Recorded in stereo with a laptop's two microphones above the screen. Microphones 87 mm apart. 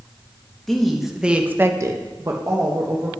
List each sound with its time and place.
0.7 s a woman speaking: centre (ahead or behind), 1.0 m; by 3.1 s 30° right (ahead or behind), 1.3 m